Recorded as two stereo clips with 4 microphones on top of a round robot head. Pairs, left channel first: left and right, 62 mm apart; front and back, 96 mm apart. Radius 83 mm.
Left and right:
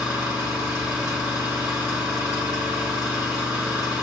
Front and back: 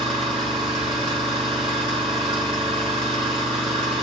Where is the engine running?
150° right, 1.4 m.